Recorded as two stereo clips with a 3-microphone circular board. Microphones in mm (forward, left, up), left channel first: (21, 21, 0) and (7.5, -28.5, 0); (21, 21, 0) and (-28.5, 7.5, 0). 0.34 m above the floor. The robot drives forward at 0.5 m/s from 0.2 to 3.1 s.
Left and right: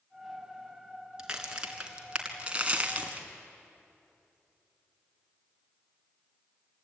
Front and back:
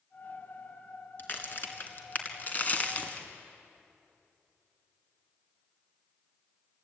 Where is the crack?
30° right, 2.5 m; by 3.3 s 45° right, 2.0 m.